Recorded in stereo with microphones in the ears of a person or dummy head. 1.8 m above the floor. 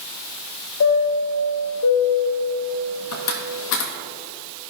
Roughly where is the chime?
Left.